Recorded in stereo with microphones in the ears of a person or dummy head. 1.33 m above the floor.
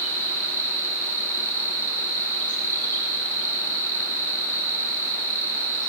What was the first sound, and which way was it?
An insect, 10° left (ahead or behind).